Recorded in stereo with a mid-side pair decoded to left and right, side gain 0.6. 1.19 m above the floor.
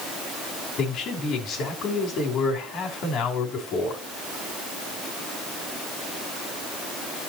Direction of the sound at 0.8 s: 55° left.